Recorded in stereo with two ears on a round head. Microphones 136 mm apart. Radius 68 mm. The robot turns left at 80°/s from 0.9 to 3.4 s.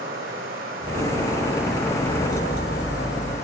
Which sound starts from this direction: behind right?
Running water, at 0.0 s.